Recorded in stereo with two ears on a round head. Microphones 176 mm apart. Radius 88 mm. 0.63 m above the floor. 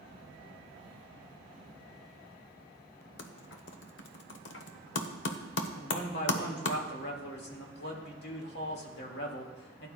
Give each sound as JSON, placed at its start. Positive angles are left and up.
{"t": 3.2, "sound": "typing on a keyboard", "side_deg": 70, "distance_m": 1.0}
{"t": 5.8, "sound": "a man speaking", "side_deg": 60, "distance_m": 1.9}